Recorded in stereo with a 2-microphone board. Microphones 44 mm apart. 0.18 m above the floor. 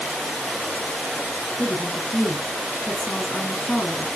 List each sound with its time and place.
1.6 s a woman speaking: 30° left (ahead or behind), 2 m